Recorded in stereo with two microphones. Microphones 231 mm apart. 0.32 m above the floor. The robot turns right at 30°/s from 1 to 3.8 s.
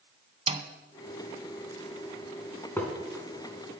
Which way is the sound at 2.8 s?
10° left (ahead or behind).